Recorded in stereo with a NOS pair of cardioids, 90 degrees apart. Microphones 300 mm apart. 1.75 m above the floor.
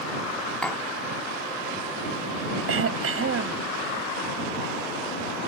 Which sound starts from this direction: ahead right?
Throat clearing, at 2.7 s.